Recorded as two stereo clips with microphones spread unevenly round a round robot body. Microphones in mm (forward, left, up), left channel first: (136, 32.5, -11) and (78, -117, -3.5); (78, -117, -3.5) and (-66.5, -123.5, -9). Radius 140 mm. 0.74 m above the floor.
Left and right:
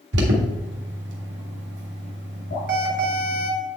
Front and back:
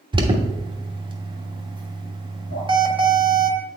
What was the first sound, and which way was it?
An alarm, 120° right.